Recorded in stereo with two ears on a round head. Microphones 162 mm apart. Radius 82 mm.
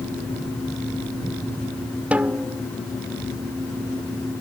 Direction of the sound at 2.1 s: 5° right (ahead or behind).